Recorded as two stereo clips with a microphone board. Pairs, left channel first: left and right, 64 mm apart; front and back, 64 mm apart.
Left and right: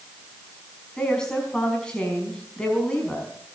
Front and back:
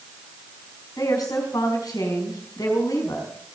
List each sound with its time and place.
1.0 s a woman speaking: 10° left, 5 m